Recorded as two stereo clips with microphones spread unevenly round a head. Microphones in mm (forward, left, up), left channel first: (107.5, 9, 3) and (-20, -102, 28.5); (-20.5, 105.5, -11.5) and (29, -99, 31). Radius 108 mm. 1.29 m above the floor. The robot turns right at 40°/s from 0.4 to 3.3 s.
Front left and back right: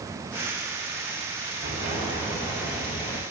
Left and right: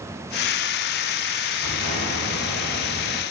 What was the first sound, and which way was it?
An explosion, 95° right.